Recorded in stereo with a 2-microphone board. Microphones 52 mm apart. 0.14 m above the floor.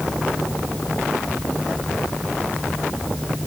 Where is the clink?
I don't hear a clink.